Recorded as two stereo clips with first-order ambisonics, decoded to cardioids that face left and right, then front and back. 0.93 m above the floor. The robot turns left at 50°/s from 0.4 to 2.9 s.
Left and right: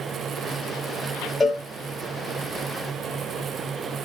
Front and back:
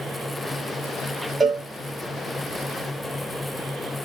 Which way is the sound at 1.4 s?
140° left.